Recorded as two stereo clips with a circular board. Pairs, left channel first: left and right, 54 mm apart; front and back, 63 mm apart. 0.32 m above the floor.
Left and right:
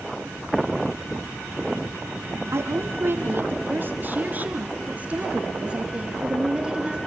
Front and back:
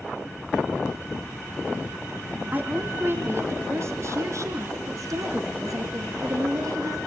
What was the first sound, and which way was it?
A woman speaking, 120° right.